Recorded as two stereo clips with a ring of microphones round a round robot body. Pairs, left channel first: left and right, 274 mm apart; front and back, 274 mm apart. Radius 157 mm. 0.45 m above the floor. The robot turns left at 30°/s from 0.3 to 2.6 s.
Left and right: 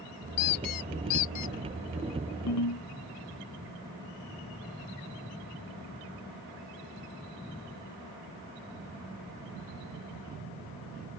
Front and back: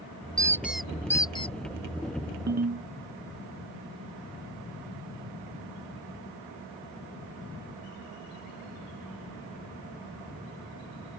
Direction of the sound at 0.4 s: 105° left.